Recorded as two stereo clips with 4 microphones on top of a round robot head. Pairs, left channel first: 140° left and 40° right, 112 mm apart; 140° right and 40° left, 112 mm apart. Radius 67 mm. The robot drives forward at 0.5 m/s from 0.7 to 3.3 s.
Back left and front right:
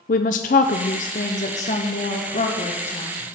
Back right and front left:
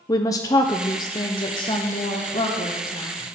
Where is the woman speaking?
155° left, 0.6 m; by 3.2 s 175° left, 1.8 m.